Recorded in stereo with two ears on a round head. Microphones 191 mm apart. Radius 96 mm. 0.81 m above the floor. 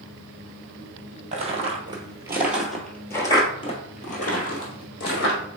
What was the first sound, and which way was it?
Footsteps, 35° right (ahead or behind).